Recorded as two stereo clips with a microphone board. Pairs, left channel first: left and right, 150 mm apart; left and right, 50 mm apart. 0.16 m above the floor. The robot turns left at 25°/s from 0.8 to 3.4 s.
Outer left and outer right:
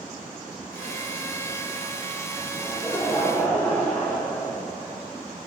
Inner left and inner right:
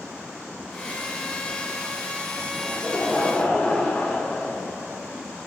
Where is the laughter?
5° right (ahead or behind), 5 m; by 5.0 s 15° left (ahead or behind), 5 m.